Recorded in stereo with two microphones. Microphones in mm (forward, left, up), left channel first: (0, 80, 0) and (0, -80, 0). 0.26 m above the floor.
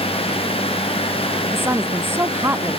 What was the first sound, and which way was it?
A woman speaking, 15° right (ahead or behind).